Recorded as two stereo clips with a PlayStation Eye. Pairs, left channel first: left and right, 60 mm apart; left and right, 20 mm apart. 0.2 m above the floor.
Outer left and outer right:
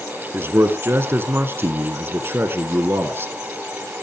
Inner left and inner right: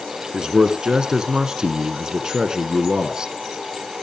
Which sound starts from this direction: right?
A man speaking, at 0.3 s.